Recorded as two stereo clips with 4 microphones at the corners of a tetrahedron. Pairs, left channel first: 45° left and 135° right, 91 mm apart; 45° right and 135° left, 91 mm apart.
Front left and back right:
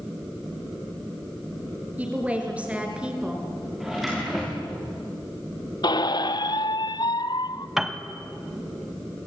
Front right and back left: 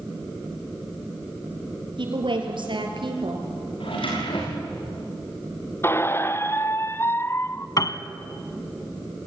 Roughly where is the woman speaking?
Behind left.